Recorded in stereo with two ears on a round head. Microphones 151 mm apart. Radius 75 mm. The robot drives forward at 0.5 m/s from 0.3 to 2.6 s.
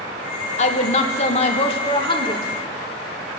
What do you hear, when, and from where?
0.6 s a woman speaking: 40° left (ahead or behind), 1.0 m; by 2.5 s 30° left (ahead or behind), 1.4 m